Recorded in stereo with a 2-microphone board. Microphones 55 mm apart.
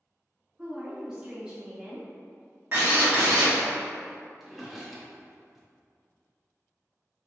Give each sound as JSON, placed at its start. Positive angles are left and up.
{"t": 0.6, "sound": "a woman speaking", "side_deg": -15, "distance_m": 0.7}
{"t": 2.7, "sound": "a drill", "side_deg": -40, "distance_m": 1.2}
{"t": 4.4, "sound": "a drawer", "side_deg": -5, "distance_m": 0.6}